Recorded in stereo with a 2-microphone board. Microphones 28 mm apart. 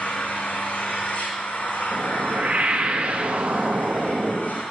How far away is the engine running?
About 3 m.